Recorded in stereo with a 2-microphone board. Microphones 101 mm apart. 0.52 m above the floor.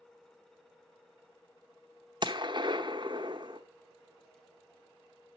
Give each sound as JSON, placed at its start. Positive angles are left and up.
{"t": 2.2, "sound": "a gunshot", "side_deg": -45, "distance_m": 0.9}